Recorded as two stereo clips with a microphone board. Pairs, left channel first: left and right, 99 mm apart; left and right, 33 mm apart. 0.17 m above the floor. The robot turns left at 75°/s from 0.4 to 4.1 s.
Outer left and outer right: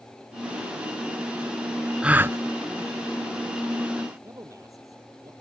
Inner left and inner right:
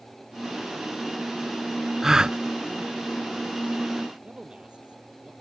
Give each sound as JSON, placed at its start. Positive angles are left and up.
{"t": 2.0, "sound": "a gasp", "side_deg": -10}
{"t": 4.2, "sound": "a man speaking", "side_deg": -35}